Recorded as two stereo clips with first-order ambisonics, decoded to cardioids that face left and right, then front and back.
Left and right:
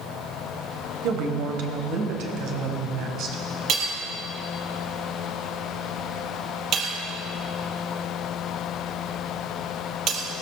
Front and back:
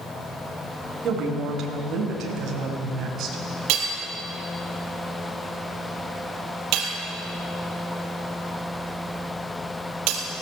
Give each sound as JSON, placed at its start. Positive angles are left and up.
{"t": 1.0, "sound": "a woman speaking", "azimuth_deg": -125, "distance_m": 4.0}
{"t": 3.7, "sound": "hammering", "azimuth_deg": -145, "distance_m": 4.0}